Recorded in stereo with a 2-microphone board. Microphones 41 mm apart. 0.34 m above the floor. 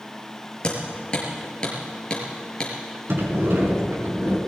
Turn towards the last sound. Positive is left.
turn(degrees=-65)  # may be behind; listen again after turning